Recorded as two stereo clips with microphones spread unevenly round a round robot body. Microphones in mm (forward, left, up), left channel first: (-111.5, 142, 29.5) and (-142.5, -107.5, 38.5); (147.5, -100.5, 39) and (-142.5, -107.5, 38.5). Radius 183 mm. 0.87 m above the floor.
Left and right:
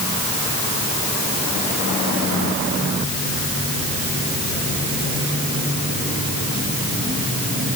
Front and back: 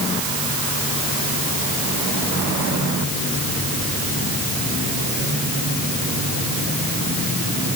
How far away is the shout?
No shout in this recording.